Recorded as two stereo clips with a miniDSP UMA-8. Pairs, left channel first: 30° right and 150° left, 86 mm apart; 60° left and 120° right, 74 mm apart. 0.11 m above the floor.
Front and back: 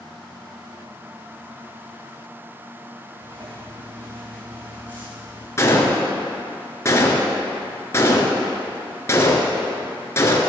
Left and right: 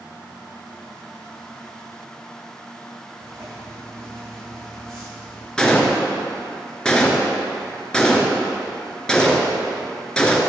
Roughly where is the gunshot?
Ahead.